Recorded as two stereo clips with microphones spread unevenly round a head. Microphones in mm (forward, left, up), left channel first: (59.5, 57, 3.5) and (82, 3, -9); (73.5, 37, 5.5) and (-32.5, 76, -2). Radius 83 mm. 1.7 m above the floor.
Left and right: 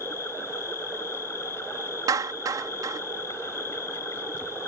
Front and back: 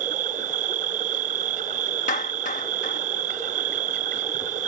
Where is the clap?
55° right.